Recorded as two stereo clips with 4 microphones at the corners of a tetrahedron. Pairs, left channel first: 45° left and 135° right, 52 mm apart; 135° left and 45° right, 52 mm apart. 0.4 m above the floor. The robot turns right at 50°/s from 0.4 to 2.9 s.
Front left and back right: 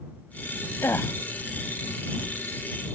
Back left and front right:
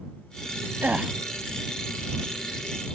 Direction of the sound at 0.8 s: 5° left.